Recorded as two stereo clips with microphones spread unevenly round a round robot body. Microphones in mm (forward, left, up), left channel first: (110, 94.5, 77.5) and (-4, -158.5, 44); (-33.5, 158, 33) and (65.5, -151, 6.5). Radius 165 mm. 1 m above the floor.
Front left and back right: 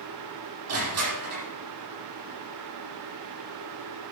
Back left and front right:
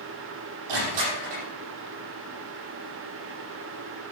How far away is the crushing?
About 8 m.